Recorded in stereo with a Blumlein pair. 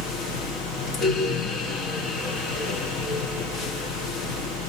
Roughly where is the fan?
Ahead left.